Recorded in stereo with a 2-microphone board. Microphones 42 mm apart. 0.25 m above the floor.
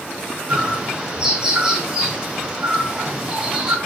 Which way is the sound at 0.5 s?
20° right (ahead or behind).